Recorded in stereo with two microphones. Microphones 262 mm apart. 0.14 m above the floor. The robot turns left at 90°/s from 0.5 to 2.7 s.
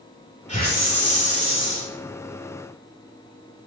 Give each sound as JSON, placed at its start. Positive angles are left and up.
{"t": 0.5, "sound": "a hiss", "azimuth_deg": 150, "distance_m": 4.0}